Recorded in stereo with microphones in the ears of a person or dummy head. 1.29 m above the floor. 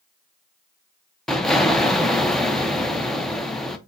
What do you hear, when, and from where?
1.3 s an explosion: centre (ahead or behind), 0.6 m